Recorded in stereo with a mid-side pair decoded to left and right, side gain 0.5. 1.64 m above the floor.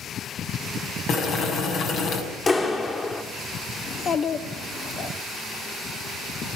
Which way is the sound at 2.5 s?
30° left.